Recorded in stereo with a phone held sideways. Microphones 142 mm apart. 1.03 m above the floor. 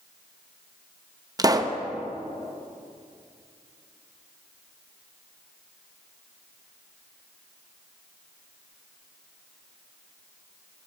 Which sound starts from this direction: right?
A pop, at 1.4 s.